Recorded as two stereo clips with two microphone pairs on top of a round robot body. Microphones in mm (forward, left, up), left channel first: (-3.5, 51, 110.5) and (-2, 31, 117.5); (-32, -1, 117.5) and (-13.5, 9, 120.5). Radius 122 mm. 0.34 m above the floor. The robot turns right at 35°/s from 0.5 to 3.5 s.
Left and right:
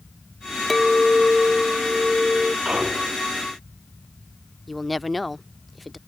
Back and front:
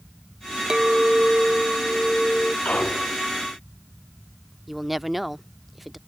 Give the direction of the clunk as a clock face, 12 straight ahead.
5 o'clock.